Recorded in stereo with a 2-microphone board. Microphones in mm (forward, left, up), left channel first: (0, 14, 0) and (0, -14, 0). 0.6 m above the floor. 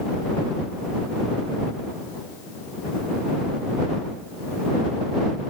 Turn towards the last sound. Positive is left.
No sound to turn to.